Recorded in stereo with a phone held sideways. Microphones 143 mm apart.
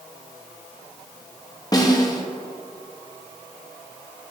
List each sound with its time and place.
1.7 s a snare drum: 25° left (ahead or behind), 1.0 m